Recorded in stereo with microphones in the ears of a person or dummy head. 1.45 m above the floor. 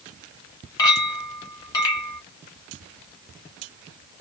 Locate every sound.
0.8 s a clink: 25° left (ahead or behind), 1.3 m